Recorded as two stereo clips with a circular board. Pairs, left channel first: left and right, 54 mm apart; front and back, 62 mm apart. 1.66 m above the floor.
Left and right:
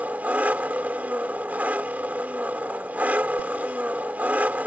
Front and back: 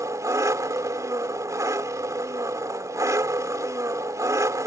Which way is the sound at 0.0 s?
150° right.